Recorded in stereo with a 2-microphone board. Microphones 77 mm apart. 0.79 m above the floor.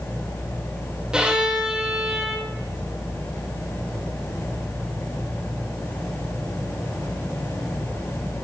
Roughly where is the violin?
Centre.